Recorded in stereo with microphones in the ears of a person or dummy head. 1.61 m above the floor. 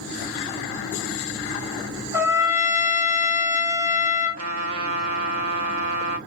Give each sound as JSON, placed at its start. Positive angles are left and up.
{"t": 2.1, "sound": "a trumpet", "side_deg": -10, "distance_m": 0.7}
{"t": 4.4, "sound": "a trumpet", "side_deg": -80, "distance_m": 1.0}